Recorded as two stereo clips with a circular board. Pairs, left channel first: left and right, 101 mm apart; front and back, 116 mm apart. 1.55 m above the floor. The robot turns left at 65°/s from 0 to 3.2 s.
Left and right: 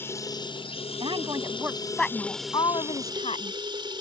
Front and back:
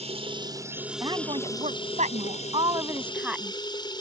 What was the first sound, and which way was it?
Running water, 160° left.